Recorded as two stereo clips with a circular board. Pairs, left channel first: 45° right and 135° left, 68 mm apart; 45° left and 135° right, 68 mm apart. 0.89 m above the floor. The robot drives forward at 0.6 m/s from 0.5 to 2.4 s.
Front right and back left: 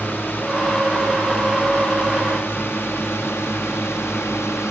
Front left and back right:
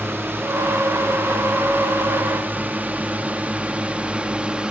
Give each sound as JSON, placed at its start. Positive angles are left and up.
{"t": 0.0, "sound": "a drone", "azimuth_deg": -95}